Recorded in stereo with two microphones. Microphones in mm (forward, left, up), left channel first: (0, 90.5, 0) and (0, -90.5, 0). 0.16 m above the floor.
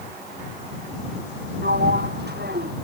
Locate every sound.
1.6 s a sliding door: 65° right (ahead or behind)